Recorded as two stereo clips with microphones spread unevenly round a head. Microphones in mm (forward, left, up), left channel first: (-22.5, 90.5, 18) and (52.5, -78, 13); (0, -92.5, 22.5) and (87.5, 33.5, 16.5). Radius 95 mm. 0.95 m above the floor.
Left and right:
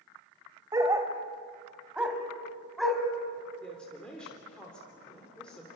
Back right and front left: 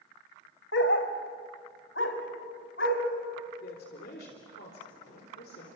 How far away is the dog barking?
About 1.8 m.